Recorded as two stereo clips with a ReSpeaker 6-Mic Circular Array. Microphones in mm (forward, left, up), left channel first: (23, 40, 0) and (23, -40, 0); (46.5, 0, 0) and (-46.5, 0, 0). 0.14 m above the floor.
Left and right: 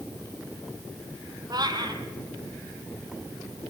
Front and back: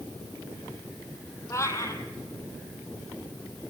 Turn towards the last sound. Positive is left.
turn(degrees=-60)